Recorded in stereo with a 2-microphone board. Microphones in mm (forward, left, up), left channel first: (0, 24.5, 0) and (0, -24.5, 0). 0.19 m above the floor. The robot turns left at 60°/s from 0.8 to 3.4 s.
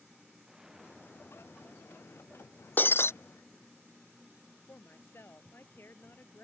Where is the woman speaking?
50° left (ahead or behind).